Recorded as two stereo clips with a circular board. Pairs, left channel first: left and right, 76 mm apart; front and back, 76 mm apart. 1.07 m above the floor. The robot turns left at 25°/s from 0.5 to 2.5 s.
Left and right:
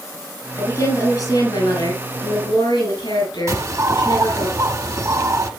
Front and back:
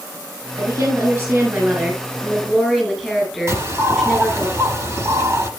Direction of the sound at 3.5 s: 130° right.